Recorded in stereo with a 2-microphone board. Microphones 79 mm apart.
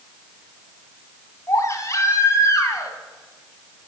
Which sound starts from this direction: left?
A baby crying, at 1.5 s.